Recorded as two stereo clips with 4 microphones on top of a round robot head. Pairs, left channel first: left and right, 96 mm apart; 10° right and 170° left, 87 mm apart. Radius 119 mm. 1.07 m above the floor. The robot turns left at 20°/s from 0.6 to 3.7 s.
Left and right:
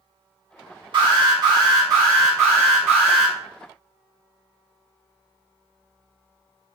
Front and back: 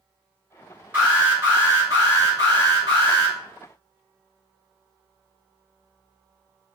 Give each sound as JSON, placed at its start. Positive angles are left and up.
{"t": 0.9, "sound": "an alarm", "azimuth_deg": -120, "distance_m": 1.8}